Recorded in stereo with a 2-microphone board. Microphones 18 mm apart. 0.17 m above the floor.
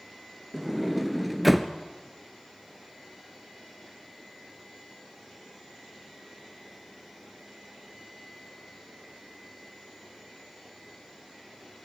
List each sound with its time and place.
0.5 s a sliding door: 5° right (ahead or behind), 1.2 m